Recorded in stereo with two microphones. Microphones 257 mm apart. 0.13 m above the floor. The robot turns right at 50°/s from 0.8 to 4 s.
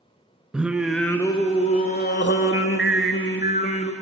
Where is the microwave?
I don't hear a microwave.